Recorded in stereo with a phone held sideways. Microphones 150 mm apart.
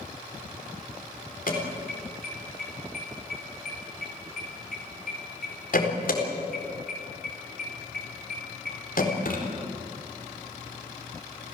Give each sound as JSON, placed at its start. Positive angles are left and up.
{"t": 1.5, "sound": "an alarm", "side_deg": 70, "distance_m": 4.0}